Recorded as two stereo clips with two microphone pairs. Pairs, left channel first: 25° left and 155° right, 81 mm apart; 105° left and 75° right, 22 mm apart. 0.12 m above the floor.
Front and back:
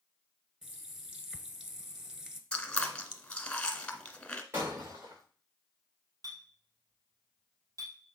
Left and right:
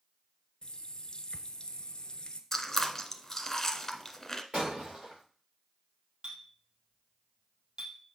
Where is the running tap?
125° left, 1.1 m.